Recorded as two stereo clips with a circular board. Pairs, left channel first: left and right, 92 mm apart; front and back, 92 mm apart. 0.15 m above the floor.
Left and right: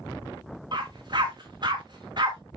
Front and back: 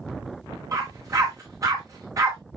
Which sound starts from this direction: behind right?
A dog barking, at 0.7 s.